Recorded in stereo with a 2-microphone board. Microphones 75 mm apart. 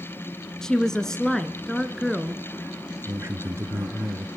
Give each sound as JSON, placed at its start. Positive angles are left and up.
{"t": 0.6, "sound": "a woman speaking", "side_deg": 10, "distance_m": 1.2}
{"t": 3.0, "sound": "a man speaking", "side_deg": -40, "distance_m": 1.3}